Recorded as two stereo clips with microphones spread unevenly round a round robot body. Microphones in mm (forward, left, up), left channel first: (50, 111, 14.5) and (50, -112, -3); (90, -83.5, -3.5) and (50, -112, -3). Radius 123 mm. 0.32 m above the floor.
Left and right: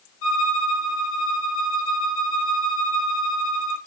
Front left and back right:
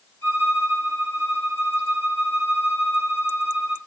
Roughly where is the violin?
Left.